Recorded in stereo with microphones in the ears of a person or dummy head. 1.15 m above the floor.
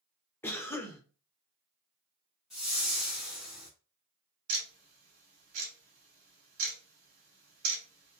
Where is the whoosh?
Centre (ahead or behind), 0.6 m.